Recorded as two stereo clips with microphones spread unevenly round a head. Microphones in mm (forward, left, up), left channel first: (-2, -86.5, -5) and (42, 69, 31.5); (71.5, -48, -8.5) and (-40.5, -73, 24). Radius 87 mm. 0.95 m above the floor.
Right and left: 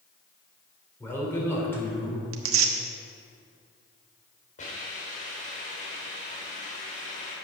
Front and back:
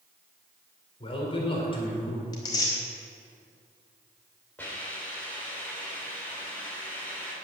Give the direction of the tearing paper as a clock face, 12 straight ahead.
9 o'clock.